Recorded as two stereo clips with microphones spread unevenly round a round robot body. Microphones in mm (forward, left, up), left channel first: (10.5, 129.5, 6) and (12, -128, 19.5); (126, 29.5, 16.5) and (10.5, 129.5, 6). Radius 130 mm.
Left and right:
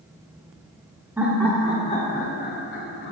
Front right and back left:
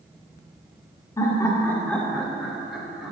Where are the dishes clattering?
I don't hear dishes clattering.